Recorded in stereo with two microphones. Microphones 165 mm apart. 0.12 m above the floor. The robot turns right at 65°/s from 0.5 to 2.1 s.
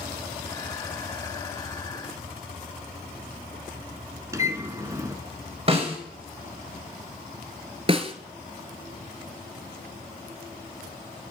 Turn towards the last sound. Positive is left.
turn(degrees=-35)  # may be behind; listen again after turning